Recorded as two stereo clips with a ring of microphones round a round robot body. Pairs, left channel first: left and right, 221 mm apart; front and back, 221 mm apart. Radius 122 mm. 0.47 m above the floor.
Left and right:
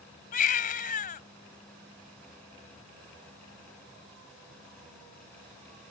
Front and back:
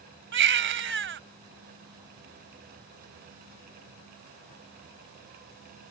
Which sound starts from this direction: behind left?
A baby crying, at 0.3 s.